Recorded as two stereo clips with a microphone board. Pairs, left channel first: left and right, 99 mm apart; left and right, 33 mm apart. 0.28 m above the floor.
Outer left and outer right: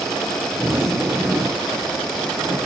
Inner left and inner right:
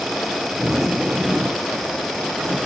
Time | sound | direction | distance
0.6 | a zipper | 25° right (ahead or behind) | 1.1 m